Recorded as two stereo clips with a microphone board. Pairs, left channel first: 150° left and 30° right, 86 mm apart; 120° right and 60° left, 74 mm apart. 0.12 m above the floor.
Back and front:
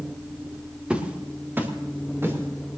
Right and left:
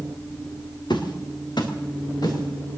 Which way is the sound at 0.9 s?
110° right.